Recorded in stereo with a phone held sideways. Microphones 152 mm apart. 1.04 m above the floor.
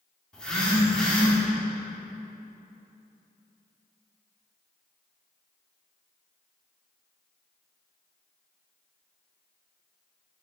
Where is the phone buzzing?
5° left (ahead or behind), 2.5 m.